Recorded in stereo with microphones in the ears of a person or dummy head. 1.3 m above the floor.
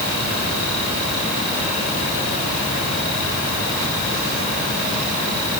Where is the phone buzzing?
No phone buzzing in this recording.